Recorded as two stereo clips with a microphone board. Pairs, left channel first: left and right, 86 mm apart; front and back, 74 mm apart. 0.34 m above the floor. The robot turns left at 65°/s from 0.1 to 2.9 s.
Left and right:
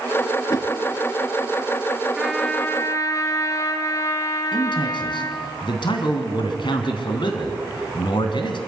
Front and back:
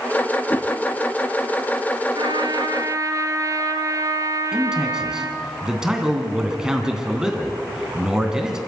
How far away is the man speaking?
About 2.5 m.